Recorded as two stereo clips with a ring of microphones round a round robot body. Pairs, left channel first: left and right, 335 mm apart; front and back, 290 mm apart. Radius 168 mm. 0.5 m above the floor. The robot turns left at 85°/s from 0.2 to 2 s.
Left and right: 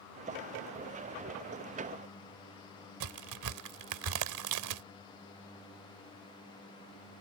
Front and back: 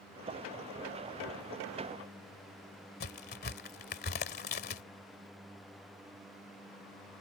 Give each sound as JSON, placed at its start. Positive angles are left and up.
{"t": 3.0, "sound": "a crack", "azimuth_deg": -60}